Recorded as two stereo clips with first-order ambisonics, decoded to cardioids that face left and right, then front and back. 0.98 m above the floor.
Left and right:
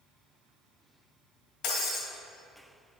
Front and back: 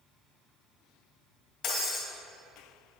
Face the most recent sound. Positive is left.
turn(degrees=60)